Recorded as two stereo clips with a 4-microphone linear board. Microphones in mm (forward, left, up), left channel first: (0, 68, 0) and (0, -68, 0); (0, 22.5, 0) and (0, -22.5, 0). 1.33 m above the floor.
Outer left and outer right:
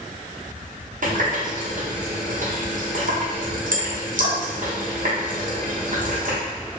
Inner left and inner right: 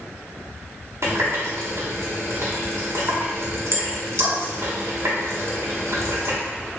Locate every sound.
1.0 s a running tap: 65° right (ahead or behind), 0.7 m